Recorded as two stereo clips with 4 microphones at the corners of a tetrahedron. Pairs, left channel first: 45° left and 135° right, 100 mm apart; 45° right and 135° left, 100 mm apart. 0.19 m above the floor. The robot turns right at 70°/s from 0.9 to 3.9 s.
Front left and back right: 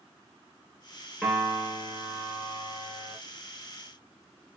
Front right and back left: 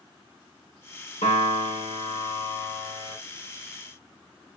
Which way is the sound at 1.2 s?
45° right.